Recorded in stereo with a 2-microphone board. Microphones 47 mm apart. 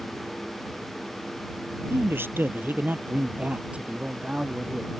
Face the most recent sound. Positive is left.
turn(degrees=-15)  # may be behind; listen again after turning